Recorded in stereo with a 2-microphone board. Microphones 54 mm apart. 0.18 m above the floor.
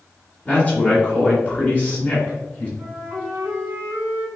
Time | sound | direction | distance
0.5 | a man speaking | 20° left (ahead or behind) | 1.1 m
2.8 | a flute | 30° right (ahead or behind) | 1.8 m